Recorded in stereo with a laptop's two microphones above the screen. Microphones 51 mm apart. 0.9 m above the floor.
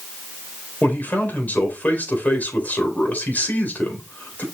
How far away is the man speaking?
About 4 m.